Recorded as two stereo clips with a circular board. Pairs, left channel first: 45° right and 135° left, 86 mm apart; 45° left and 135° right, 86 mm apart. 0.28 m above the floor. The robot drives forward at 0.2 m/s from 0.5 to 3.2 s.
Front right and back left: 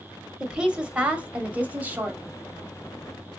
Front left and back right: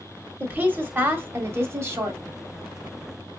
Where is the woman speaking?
160° right, 0.9 m; by 2.2 s 170° right, 1.1 m.